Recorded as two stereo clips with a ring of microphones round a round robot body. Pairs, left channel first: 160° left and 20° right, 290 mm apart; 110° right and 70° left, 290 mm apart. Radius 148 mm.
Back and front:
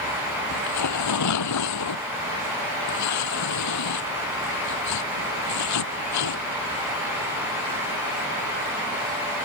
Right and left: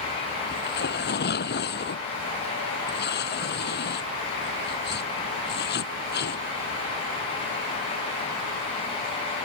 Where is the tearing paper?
170° right.